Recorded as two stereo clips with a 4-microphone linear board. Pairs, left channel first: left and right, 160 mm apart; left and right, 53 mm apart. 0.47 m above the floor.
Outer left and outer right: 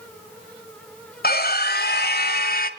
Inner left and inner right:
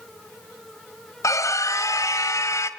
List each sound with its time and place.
1.2 s a scream: 65° left (ahead or behind), 2 m; by 2.7 s 60° left (ahead or behind), 2.0 m